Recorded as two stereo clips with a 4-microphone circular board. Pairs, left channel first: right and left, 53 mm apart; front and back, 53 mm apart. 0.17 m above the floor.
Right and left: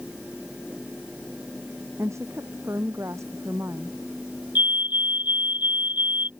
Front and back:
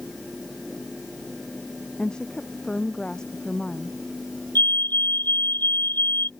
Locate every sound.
2.0 s a woman speaking: 75° left
4.5 s a fire alarm: 40° left